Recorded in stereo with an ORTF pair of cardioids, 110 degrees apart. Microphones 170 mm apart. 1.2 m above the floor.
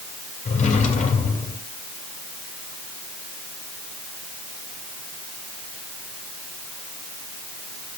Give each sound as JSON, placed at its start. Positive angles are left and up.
{"t": 0.5, "sound": "a drawer", "azimuth_deg": 45, "distance_m": 2.5}